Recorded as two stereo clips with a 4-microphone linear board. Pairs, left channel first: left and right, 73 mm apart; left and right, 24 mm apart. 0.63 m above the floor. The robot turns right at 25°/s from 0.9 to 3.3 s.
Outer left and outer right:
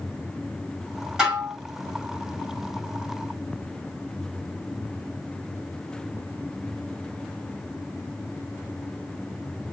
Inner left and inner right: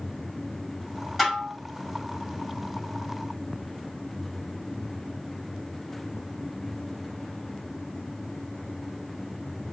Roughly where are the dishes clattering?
Centre.